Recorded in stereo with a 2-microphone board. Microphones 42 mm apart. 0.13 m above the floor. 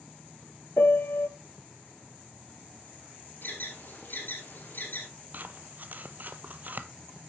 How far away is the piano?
About 0.6 m.